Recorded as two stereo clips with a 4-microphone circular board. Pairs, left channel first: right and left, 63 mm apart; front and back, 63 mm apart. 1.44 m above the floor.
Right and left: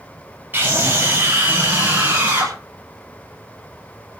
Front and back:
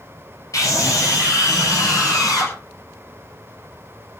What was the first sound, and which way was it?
A scream, 30° left.